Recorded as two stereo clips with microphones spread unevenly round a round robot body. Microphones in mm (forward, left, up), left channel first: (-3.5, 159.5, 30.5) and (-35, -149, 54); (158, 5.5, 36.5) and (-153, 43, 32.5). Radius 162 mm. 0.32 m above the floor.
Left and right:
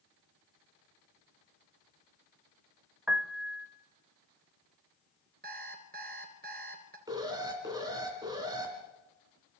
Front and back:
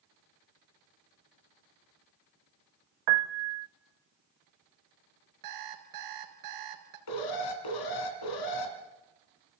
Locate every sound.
3.1 s a piano: 175° left, 0.6 m
5.4 s an alarm clock: 160° right, 2.5 m
7.1 s an alarm: 15° right, 2.5 m